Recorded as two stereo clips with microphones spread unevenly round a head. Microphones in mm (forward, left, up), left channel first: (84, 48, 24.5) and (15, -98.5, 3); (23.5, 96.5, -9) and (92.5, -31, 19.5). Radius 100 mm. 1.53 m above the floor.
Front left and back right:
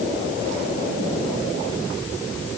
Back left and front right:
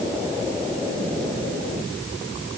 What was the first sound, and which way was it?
Only background noise.